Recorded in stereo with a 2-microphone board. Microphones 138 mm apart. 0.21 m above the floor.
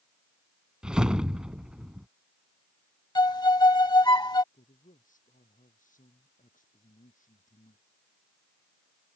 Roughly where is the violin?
Left.